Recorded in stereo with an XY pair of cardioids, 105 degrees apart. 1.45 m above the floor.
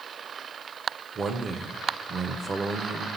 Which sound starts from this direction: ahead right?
A man speaking, at 1.1 s.